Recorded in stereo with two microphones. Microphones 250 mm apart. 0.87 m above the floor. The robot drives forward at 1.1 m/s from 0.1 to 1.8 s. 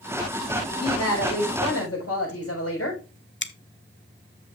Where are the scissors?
50° left (ahead or behind), 0.6 m.